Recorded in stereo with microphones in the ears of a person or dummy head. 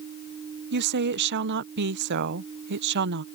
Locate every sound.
0.7 s a woman speaking: 60° right (ahead or behind)